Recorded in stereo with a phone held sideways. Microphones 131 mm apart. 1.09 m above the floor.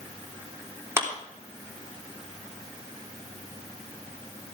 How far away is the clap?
About 3 m.